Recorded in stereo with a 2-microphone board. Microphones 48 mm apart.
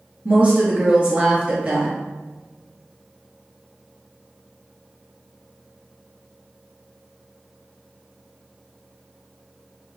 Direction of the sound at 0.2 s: 30° right (ahead or behind).